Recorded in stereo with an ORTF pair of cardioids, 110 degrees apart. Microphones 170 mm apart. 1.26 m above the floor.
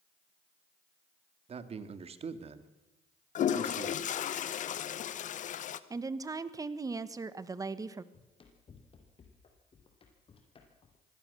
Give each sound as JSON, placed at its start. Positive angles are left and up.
{"t": 1.5, "sound": "a man speaking", "azimuth_deg": -40, "distance_m": 2.0}
{"t": 3.4, "sound": "a toilet flushing", "azimuth_deg": 50, "distance_m": 1.1}
{"t": 5.9, "sound": "a woman speaking", "azimuth_deg": -20, "distance_m": 1.4}
{"t": 8.1, "sound": "running footsteps", "azimuth_deg": 35, "distance_m": 4.0}